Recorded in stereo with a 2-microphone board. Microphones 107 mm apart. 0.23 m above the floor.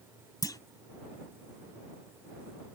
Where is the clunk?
35° left (ahead or behind).